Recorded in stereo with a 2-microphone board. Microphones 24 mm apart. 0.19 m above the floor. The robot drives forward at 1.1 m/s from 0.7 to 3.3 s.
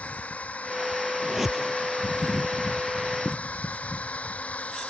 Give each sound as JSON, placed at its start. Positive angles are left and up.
{"t": 0.0, "sound": "a drone", "side_deg": 80}
{"t": 1.2, "sound": "a whoosh", "side_deg": -10}